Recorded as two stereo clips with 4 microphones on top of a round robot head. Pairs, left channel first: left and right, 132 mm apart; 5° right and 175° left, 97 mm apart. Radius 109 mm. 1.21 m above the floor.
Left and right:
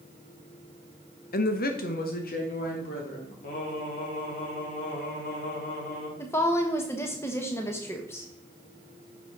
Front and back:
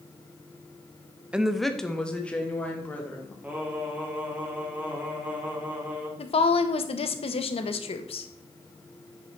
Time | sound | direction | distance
1.3 | a woman speaking | 95° left | 0.8 m
3.4 | singing | 100° left | 2.5 m
6.2 | a woman speaking | 15° left | 1.0 m